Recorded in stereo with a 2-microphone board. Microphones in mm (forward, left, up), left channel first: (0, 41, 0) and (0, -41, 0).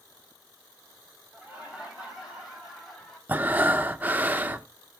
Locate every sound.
1.3 s laughter: 15° right (ahead or behind), 5.5 m; by 3.2 s 5° left (ahead or behind), 5.5 m
3.3 s breathing: 25° right (ahead or behind), 0.6 m